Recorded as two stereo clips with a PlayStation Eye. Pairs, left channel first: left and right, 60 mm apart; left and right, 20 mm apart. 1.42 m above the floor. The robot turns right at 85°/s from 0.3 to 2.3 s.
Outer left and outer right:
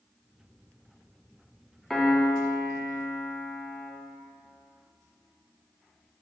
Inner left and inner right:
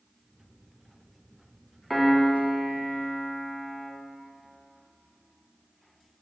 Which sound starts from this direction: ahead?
A piano, at 1.9 s.